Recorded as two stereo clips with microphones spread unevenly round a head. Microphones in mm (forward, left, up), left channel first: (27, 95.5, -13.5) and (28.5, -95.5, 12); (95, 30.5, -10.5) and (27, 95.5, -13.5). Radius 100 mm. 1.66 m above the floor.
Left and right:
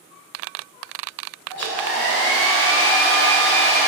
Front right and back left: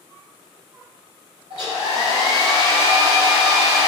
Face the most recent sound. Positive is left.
turn(degrees=175)